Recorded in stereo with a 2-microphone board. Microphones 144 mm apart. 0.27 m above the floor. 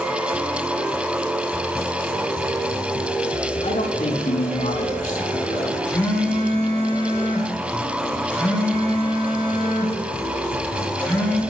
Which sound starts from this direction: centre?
A phone buzzing, at 5.9 s.